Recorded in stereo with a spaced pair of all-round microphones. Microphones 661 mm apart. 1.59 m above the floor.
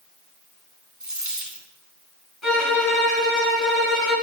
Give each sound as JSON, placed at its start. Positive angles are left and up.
{"t": 1.0, "sound": "a dropped coin", "side_deg": -25, "distance_m": 1.2}
{"t": 2.4, "sound": "a violin", "side_deg": 45, "distance_m": 4.5}